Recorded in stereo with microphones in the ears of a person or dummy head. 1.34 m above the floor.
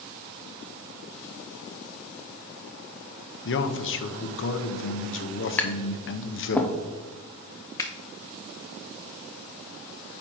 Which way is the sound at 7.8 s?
15° left (ahead or behind).